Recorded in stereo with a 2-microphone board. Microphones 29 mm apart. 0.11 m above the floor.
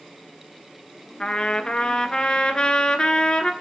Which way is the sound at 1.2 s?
30° left (ahead or behind).